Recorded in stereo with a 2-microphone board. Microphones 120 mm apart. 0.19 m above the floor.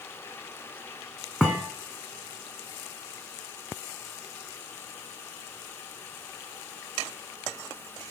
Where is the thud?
5° right (ahead or behind), 2 m.